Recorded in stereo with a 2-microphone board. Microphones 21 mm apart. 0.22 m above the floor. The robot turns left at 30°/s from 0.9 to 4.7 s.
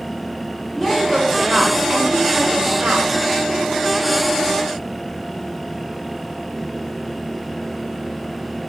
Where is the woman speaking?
5° left, 7 m; by 3.1 s 65° right, 7 m.